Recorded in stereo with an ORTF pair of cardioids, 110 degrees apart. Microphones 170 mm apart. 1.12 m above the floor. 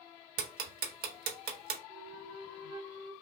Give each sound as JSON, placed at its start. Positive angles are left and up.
{"t": 0.4, "sound": "ticking", "azimuth_deg": -70, "distance_m": 1.1}
{"t": 1.9, "sound": "a flute", "azimuth_deg": -35, "distance_m": 0.7}